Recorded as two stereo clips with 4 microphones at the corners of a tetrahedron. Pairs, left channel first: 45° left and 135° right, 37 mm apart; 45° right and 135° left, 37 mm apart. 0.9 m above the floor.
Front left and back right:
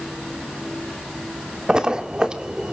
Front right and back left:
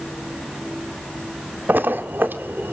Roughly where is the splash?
Behind left.